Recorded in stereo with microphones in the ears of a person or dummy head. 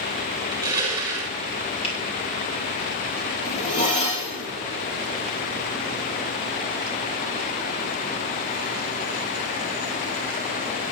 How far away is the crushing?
About 4.5 m.